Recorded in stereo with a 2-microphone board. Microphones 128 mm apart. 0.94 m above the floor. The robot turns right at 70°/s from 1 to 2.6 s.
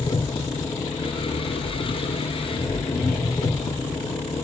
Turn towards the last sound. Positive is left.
turn(degrees=145)